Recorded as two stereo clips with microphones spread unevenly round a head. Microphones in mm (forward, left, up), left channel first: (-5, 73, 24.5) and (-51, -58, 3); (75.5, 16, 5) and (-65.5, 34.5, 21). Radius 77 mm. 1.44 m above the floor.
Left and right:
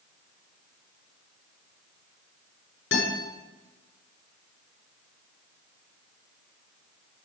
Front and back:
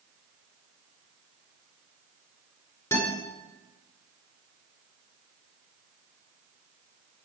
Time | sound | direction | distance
2.9 | a guitar | 65° left | 6.5 m